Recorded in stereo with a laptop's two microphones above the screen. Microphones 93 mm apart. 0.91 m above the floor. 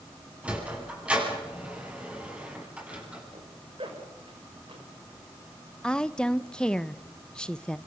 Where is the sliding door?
15° right (ahead or behind), 10 m.